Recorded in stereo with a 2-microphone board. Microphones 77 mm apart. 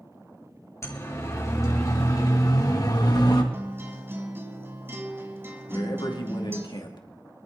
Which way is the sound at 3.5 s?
30° right (ahead or behind).